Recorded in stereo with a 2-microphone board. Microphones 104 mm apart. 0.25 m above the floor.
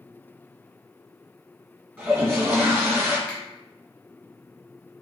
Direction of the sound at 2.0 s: 20° right (ahead or behind).